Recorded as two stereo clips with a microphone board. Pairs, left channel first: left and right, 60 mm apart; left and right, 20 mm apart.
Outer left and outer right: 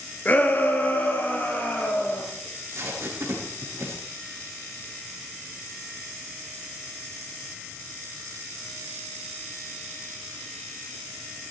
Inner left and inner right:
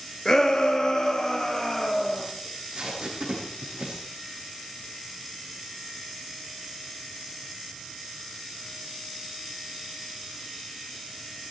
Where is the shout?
30° left (ahead or behind), 2.5 m; by 2.2 s 35° left (ahead or behind), 4.5 m.